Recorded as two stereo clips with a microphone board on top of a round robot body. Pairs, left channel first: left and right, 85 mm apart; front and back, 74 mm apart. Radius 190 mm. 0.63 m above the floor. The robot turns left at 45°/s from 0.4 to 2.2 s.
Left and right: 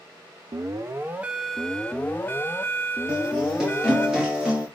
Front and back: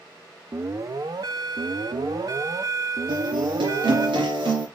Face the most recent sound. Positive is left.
turn(degrees=-175)